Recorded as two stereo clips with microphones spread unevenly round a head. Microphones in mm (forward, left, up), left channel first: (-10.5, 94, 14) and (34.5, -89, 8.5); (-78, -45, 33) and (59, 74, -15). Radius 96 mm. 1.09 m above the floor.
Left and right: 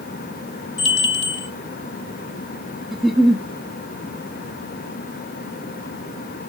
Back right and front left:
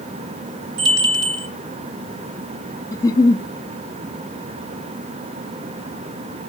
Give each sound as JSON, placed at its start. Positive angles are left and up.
{"t": 0.8, "sound": "a bell", "azimuth_deg": 80, "distance_m": 2.5}
{"t": 2.9, "sound": "a giggle", "azimuth_deg": -170, "distance_m": 0.5}